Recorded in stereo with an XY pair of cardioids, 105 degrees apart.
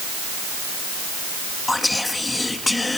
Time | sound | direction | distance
1.7 | whispering | 15° left | 1.3 m